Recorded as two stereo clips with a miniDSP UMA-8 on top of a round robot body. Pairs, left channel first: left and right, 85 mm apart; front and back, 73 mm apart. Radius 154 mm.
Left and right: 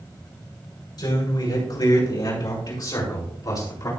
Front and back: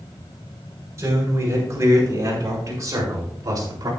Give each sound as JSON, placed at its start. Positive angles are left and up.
{"t": 1.0, "sound": "a man speaking", "azimuth_deg": 125, "distance_m": 5.5}